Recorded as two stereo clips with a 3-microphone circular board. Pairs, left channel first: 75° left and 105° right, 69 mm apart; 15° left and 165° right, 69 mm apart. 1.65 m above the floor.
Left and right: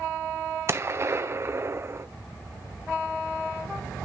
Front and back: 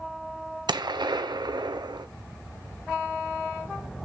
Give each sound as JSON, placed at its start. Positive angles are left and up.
{"t": 0.7, "sound": "a gunshot", "azimuth_deg": -155, "distance_m": 0.9}